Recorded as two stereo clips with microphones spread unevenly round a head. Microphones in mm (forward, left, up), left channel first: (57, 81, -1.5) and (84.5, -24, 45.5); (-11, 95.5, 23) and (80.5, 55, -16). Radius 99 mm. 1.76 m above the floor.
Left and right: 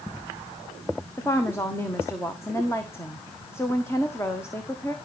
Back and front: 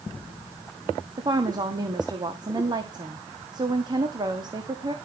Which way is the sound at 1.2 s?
30° left.